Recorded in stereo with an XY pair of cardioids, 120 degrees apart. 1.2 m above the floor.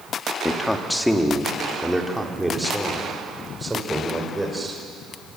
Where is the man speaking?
15° left, 2.5 m; by 4.8 s 15° right, 5.5 m.